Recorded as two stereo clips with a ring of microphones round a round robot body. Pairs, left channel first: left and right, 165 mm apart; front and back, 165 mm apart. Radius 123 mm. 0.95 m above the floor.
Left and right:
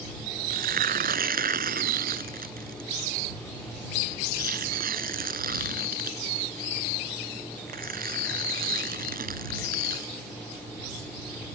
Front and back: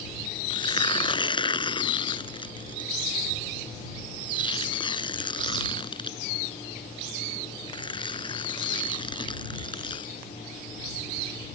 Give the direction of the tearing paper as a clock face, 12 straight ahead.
2 o'clock.